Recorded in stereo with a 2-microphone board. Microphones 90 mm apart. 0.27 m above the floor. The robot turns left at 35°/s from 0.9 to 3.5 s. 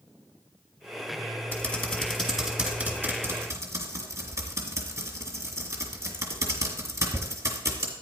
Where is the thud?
No thud in this recording.